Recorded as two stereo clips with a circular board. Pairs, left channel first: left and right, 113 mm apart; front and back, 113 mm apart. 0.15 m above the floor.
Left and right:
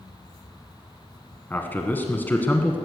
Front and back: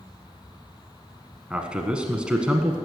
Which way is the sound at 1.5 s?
120° left.